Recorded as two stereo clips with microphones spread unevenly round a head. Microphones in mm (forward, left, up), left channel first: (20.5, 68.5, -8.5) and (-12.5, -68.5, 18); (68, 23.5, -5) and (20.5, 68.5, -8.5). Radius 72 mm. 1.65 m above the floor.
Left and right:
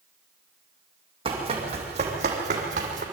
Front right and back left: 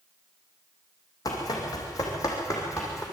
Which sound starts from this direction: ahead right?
Running footsteps, at 1.2 s.